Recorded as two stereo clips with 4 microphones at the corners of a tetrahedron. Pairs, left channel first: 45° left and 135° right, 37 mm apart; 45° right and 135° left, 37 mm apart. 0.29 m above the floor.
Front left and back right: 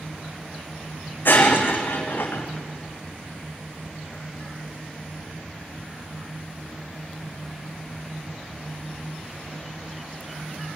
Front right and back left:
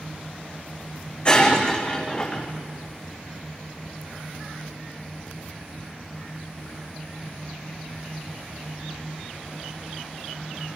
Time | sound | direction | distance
1.2 | breaking glass | 15° left | 3.5 m